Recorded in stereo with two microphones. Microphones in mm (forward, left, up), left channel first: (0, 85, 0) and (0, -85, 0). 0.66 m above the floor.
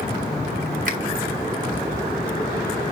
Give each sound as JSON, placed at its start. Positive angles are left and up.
{"t": 0.8, "sound": "a finger snap", "side_deg": -50, "distance_m": 3.5}